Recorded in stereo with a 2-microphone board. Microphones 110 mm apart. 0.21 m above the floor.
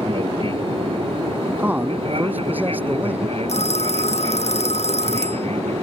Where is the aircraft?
55° right (ahead or behind); by 5.8 s 65° right (ahead or behind).